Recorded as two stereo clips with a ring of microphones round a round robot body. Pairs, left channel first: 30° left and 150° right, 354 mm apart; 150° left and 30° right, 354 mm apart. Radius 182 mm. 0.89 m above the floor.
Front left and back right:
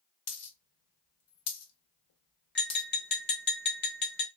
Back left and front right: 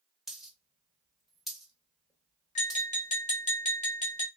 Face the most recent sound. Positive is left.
turn(degrees=85)